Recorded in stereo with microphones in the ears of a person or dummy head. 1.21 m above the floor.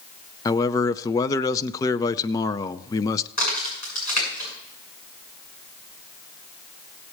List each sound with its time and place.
0.5 s a man speaking: 15° left (ahead or behind), 0.5 m
3.4 s a crack: 40° left (ahead or behind), 8 m